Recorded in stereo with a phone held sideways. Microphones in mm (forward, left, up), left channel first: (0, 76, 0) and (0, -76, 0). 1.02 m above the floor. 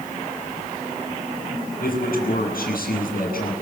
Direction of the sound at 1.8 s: 75° left (ahead or behind).